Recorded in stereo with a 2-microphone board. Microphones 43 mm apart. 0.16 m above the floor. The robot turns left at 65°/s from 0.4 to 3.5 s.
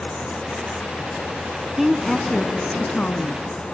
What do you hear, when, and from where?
1.8 s a woman speaking: 170° right, 1.2 m; by 3.6 s 75° left, 1.2 m